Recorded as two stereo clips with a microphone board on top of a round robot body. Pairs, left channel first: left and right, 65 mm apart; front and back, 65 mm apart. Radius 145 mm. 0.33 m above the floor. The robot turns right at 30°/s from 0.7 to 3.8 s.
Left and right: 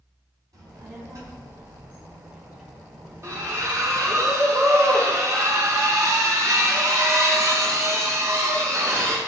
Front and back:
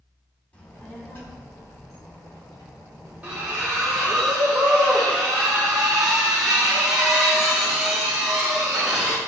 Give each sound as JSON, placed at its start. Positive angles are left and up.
{"t": 0.5, "sound": "a child speaking", "azimuth_deg": -70, "distance_m": 2.5}
{"t": 3.2, "sound": "a splash", "azimuth_deg": -115, "distance_m": 1.9}